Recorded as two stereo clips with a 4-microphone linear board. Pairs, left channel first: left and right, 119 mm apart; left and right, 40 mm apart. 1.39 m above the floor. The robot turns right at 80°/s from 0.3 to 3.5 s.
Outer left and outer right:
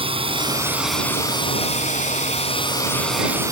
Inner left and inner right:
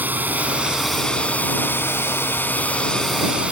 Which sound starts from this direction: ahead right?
A drone, at 0.0 s.